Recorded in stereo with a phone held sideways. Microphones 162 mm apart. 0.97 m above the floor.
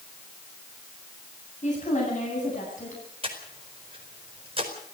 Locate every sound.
1.6 s a woman speaking: 45° left (ahead or behind), 8.5 m; by 3.0 s 50° left (ahead or behind), 10 m
3.2 s breathing: 35° right (ahead or behind), 4.5 m